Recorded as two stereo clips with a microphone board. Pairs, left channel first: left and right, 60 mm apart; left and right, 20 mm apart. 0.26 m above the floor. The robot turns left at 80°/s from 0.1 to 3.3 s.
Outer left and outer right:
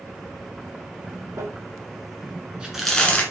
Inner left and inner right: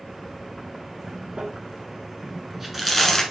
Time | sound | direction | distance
1.4 | crumpling | 65° right (ahead or behind) | 0.9 m